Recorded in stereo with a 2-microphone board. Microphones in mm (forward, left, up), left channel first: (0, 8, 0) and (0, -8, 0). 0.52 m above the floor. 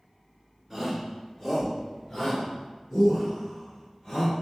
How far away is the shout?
About 1.3 m.